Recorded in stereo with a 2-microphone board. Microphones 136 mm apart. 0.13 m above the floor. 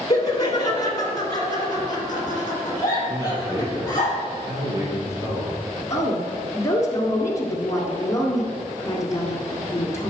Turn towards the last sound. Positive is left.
turn(degrees=25)  # may be behind; listen again after turning